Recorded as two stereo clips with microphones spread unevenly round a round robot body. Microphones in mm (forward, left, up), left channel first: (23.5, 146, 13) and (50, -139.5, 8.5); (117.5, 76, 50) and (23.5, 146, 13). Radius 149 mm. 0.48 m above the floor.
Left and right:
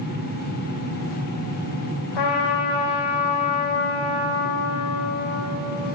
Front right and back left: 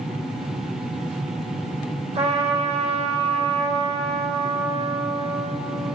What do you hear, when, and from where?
2.1 s a trumpet: 110° left, 7.5 m